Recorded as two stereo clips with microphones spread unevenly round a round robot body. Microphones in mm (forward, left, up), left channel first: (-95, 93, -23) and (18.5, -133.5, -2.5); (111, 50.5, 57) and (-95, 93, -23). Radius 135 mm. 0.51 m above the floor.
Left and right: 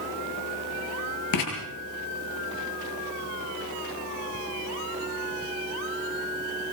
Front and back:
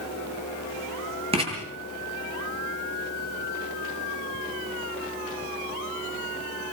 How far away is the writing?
About 8.5 m.